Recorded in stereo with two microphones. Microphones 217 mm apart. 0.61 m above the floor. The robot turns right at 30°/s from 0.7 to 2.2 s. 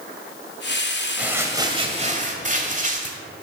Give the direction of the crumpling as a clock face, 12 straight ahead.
6 o'clock.